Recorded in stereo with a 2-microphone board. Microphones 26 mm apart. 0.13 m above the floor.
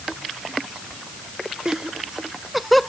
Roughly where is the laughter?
Right.